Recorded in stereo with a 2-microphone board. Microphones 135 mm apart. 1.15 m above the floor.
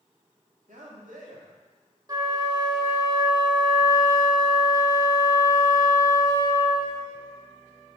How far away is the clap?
No clap in this recording.